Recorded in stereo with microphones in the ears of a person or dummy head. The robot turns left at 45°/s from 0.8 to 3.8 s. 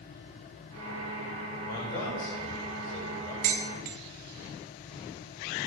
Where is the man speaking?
100° left, 6.5 m; by 3.3 s 20° left, 6.5 m.